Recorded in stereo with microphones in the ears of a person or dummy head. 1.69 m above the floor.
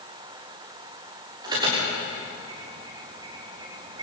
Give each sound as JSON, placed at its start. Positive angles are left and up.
{"t": 1.4, "sound": "an alarm", "side_deg": -25, "distance_m": 6.5}